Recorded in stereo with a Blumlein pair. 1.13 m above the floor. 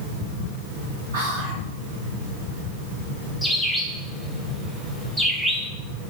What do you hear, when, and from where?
1.1 s whispering: 55° right, 1.4 m
3.4 s a bird: straight ahead, 1.2 m